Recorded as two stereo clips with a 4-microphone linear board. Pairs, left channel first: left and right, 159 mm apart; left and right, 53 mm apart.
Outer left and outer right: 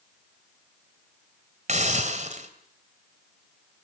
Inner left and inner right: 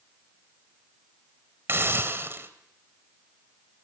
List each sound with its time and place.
1.7 s a hiss: 50° right (ahead or behind), 2.5 m